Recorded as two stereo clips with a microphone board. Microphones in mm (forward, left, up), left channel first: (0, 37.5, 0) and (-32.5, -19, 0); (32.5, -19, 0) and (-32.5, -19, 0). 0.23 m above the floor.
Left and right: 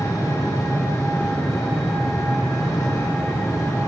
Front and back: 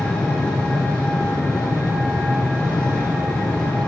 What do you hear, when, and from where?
0.0 s an engine running: 75° left, 3 m